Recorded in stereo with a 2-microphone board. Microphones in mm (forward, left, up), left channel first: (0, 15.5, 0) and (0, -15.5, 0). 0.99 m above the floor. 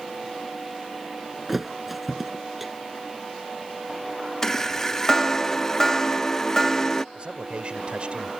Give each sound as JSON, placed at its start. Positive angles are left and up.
{"t": 1.5, "sound": "a thud", "side_deg": -5}
{"t": 4.4, "sound": "a chime", "side_deg": 20}
{"t": 7.2, "sound": "a man speaking", "side_deg": -35}